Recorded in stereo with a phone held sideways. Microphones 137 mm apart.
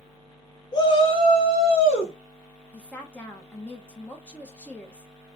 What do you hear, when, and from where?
0.7 s a shout: 30° left (ahead or behind), 0.8 m; by 2.1 s 40° left (ahead or behind), 2.0 m
2.7 s a woman speaking: 10° left (ahead or behind), 0.9 m